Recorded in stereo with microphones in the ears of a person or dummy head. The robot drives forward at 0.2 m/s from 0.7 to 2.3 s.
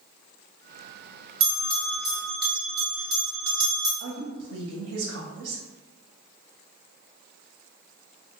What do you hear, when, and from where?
1.4 s a bell: 15° right (ahead or behind), 1.1 m
4.0 s a woman speaking: 50° right (ahead or behind), 0.6 m